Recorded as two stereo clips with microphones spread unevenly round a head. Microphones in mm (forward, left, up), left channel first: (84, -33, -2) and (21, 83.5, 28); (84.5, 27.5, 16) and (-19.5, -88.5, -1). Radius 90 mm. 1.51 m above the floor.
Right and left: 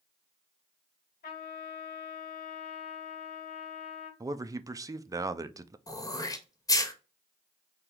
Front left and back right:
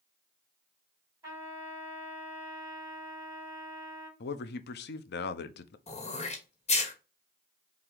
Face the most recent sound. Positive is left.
turn(degrees=5)